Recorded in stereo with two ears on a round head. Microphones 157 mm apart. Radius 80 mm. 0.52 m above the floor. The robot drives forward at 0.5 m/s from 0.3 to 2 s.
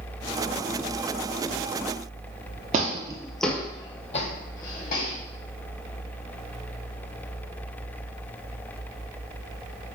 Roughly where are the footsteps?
Right.